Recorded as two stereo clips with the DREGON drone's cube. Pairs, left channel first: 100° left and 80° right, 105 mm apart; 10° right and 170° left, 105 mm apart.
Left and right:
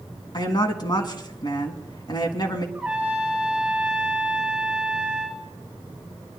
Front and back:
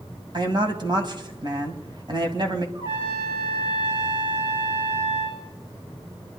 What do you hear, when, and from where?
0.3 s a woman speaking: 135° left, 2 m
2.8 s a trumpet: 160° right, 6.5 m